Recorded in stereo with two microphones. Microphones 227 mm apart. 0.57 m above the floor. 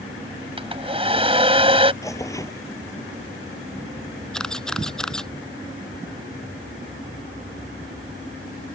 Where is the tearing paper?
15° left (ahead or behind).